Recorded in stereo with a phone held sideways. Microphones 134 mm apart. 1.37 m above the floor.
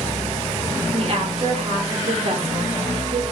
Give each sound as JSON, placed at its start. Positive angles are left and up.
{"t": 0.9, "sound": "a woman speaking", "side_deg": -45, "distance_m": 0.8}